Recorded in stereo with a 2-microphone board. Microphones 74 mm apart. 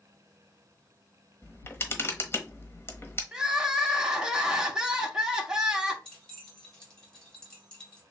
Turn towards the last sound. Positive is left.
turn(degrees=10)  # may be behind; listen again after turning